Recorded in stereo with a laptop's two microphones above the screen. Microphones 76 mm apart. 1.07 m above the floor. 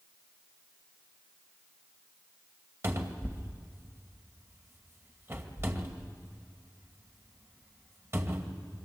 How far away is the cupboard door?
About 2 m.